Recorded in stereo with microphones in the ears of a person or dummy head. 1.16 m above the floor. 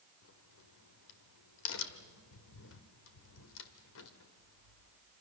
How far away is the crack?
About 1.4 m.